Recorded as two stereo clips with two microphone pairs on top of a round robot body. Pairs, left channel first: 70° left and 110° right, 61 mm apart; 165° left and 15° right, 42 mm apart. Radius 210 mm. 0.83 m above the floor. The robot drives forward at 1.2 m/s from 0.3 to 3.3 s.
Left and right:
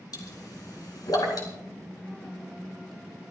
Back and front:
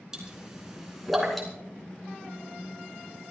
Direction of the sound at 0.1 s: 60° left.